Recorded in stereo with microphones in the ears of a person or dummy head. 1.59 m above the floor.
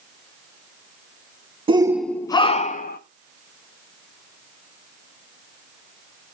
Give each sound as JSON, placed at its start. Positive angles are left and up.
{"t": 1.7, "sound": "a shout", "side_deg": -25, "distance_m": 0.6}